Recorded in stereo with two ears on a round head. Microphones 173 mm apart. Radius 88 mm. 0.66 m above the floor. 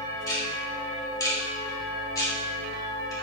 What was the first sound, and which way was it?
Ticking, 20° left (ahead or behind).